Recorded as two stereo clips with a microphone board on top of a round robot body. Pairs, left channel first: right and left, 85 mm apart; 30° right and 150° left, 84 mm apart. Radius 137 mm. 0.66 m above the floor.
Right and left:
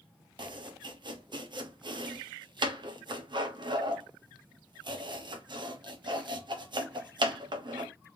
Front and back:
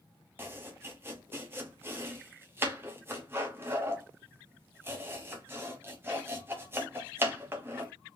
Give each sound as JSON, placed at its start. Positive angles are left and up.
{"t": 0.4, "sound": "chopping", "azimuth_deg": 90, "distance_m": 1.2}